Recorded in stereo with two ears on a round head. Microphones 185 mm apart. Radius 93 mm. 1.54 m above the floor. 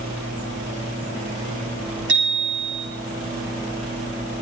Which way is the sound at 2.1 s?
60° right (ahead or behind).